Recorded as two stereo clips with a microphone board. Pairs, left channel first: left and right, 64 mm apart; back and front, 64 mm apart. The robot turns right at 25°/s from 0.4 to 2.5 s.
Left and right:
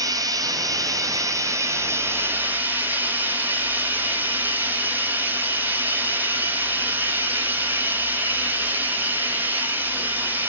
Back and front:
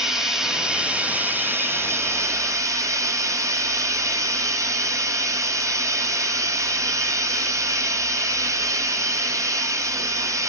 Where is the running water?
80° right, 0.8 m; by 10.5 s 30° right, 0.8 m.